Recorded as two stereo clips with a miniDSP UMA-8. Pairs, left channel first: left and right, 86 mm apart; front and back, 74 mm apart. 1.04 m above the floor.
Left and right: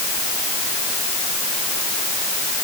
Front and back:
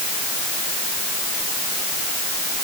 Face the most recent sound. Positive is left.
No sound to turn to.